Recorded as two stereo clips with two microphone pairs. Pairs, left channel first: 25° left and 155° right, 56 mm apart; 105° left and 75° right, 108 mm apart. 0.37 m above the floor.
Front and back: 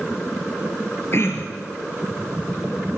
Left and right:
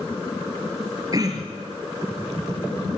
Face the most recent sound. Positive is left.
turn(degrees=-20)